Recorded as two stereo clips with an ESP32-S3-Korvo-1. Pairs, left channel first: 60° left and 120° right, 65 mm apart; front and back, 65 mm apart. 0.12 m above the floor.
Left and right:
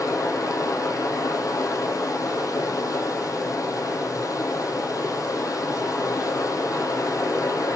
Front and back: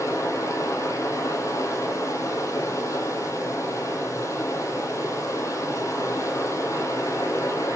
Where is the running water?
35° left, 1.9 m.